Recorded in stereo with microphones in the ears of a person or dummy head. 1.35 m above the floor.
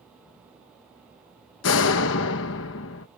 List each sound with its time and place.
1.6 s a door slam: 70° left (ahead or behind)